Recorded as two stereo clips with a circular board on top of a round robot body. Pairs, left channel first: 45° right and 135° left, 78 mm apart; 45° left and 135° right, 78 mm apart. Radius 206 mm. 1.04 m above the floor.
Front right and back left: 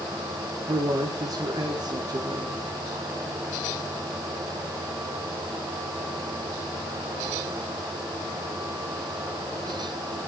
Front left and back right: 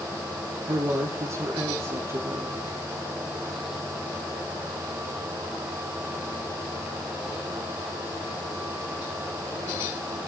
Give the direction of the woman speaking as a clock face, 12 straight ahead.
6 o'clock.